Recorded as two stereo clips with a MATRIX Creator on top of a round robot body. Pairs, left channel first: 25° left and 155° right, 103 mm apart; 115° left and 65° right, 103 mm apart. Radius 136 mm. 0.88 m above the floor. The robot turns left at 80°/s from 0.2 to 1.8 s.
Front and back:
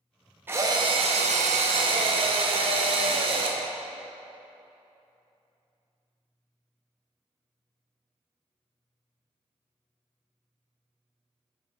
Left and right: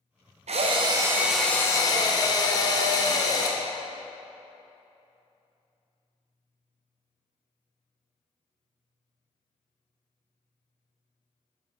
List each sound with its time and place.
0.5 s a drill: 85° right, 0.6 m; by 3.6 s 165° left, 0.6 m